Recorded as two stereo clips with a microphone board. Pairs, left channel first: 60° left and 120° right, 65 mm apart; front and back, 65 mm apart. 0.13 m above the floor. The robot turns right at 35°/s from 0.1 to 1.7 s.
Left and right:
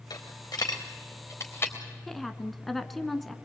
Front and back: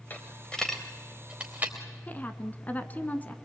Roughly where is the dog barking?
I don't hear a dog barking.